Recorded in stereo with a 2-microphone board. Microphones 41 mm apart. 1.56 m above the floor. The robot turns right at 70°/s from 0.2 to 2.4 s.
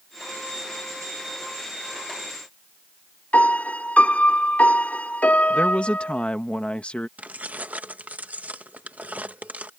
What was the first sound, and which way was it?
A piano, 40° left (ahead or behind).